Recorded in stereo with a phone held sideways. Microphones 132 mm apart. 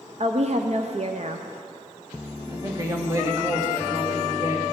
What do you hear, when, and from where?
0.2 s a woman speaking: 55° right (ahead or behind), 0.6 m
2.5 s a woman speaking: 25° right (ahead or behind), 1.7 m